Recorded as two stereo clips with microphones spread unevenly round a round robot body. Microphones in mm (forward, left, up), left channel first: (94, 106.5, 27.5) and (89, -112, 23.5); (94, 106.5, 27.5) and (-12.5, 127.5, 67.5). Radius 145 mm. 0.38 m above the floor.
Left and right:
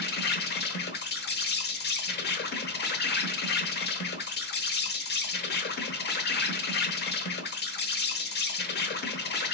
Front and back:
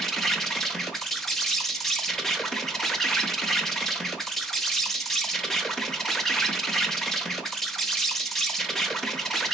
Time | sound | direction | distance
0.0 | an insect | 60° left | 0.9 m